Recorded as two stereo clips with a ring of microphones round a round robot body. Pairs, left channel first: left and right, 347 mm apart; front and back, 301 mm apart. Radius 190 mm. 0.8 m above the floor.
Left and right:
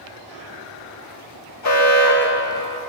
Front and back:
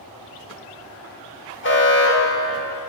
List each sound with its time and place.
1.6 s an alarm: 50° left, 4.5 m